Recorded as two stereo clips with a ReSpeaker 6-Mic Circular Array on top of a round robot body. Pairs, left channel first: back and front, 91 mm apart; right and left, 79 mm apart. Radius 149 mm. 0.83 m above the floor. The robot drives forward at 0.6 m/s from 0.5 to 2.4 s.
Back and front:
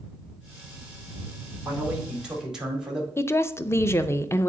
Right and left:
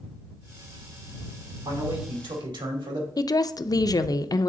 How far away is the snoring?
I don't hear snoring.